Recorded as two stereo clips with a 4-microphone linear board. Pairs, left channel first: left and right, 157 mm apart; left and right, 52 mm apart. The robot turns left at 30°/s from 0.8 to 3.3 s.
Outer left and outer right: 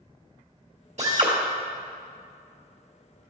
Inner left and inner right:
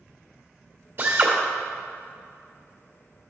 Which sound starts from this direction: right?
A drill, at 1.0 s.